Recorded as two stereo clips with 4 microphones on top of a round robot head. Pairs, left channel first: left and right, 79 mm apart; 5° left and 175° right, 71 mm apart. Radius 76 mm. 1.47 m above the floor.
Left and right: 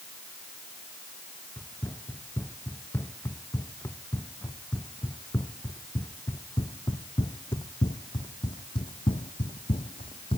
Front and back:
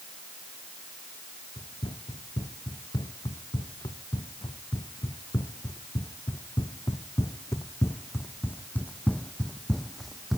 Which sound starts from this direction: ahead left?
Running footsteps, at 1.6 s.